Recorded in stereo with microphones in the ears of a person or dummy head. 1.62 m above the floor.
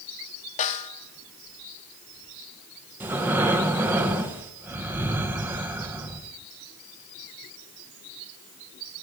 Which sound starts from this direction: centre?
Breathing, at 3.0 s.